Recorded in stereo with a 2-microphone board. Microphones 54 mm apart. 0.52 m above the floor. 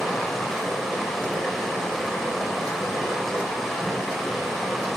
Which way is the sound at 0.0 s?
Centre (ahead or behind).